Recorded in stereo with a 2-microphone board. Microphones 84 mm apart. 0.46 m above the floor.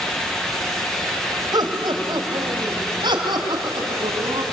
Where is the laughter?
60° right (ahead or behind), 2.5 m; by 4.4 s 75° right (ahead or behind), 4.5 m.